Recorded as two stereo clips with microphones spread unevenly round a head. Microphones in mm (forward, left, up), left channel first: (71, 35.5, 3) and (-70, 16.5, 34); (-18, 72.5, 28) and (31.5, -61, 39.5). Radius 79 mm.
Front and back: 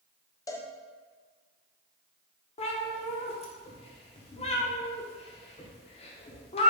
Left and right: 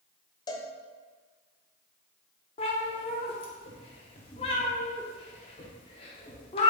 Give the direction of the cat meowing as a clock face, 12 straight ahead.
10 o'clock.